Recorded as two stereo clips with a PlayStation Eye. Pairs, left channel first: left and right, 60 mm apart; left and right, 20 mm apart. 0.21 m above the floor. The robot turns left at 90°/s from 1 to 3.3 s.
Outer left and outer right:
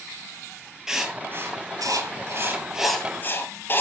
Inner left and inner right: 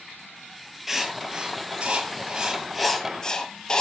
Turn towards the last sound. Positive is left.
turn(degrees=35)  # may be behind; listen again after turning